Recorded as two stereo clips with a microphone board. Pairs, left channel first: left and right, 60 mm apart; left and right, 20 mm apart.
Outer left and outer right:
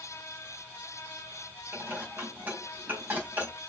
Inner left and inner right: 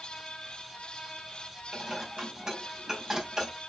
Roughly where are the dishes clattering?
Right.